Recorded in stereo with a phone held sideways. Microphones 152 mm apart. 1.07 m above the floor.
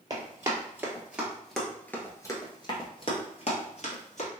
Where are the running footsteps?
25° right (ahead or behind), 1.6 m; by 4.3 s 55° left (ahead or behind), 1.8 m.